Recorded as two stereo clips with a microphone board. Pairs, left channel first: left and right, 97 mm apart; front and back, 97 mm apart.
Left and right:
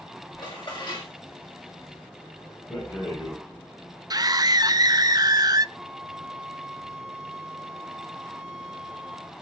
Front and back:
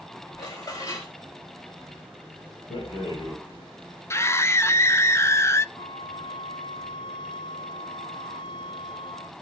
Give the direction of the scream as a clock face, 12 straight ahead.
2 o'clock.